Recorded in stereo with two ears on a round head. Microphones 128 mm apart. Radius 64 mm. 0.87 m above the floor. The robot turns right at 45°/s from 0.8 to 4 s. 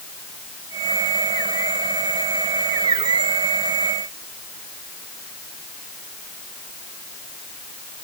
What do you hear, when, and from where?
Only background noise.